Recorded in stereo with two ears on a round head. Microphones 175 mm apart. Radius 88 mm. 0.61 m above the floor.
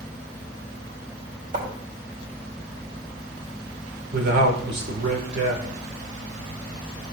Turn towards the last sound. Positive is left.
turn(degrees=-60)  # may be behind; listen again after turning